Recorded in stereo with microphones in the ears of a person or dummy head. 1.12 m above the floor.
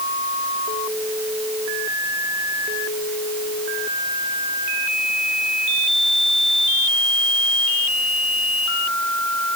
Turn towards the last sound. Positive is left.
No sound to turn to.